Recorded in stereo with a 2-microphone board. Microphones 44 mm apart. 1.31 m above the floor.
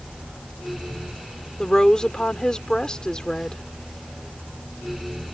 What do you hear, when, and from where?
1.6 s a woman speaking: 20° left (ahead or behind)